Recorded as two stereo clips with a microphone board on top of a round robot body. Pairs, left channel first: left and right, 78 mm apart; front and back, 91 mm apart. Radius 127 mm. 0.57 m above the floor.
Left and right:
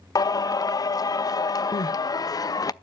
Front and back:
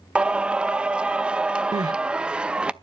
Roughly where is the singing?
Left.